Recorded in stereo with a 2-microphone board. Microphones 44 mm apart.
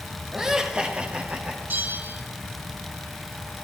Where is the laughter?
10° right (ahead or behind), 1.5 m; by 1.6 s 40° right (ahead or behind), 1.1 m.